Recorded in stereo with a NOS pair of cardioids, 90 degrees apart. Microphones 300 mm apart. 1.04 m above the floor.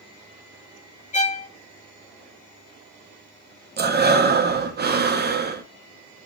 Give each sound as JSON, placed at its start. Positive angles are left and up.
{"t": 1.1, "sound": "a violin", "azimuth_deg": 25, "distance_m": 1.2}
{"t": 3.8, "sound": "breathing", "azimuth_deg": -35, "distance_m": 0.9}